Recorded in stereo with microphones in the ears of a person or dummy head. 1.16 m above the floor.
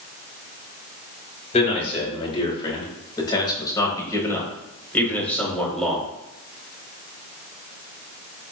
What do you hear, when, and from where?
1.5 s a man speaking: 40° left (ahead or behind), 5.5 m; by 6.0 s 5° left (ahead or behind), 5 m